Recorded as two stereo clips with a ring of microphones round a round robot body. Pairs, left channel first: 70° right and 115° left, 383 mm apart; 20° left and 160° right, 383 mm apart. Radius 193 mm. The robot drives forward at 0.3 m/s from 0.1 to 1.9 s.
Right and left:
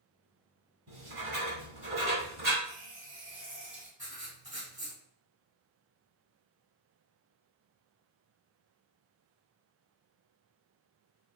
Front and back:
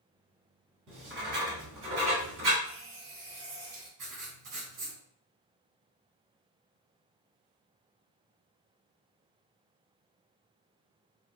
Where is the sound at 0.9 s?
165° left, 1.5 m; by 2.5 s 170° left, 1.7 m.